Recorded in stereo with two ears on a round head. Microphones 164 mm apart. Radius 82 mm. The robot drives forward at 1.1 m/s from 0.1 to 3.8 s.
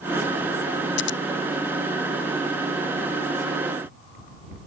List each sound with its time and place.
1.0 s scissors: 70° left (ahead or behind)